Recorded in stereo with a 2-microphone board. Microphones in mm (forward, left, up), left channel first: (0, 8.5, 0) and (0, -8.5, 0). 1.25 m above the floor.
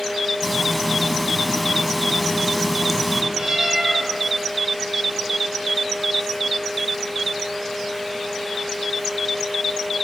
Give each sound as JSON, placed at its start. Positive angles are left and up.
{"t": 0.4, "sound": "frying", "side_deg": 0, "distance_m": 3.5}
{"t": 3.3, "sound": "a cat meowing", "side_deg": -40, "distance_m": 6.5}